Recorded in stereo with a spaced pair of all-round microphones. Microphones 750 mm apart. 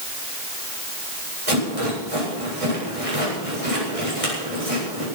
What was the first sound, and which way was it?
A rattle, 45° right (ahead or behind).